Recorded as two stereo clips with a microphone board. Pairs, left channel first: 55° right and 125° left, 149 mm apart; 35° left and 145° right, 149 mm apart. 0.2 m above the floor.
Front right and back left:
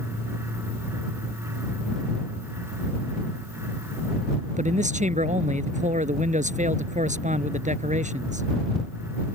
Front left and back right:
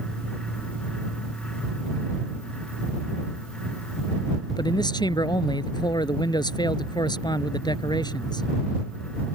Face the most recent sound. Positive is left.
turn(degrees=95)